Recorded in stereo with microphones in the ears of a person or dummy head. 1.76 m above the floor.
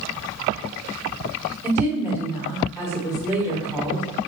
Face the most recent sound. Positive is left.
turn(degrees=-10)  # may be behind; listen again after turning